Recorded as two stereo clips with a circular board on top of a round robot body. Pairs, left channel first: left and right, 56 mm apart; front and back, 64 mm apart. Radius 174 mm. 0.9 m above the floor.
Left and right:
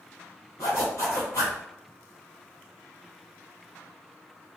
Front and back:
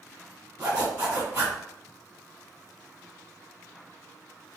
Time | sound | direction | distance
0.6 | a zipper | 120° left | 0.6 m